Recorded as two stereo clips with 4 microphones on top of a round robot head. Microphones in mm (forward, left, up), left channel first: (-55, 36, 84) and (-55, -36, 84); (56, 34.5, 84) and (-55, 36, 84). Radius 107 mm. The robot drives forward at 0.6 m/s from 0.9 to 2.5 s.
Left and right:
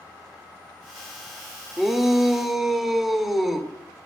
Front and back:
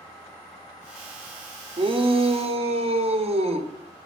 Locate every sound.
1.8 s a shout: 175° right, 1.1 m